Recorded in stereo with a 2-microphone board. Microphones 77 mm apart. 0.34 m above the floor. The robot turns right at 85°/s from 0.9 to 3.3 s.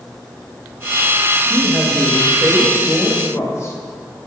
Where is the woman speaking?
40° right, 1.3 m; by 3.8 s 115° left, 1.3 m.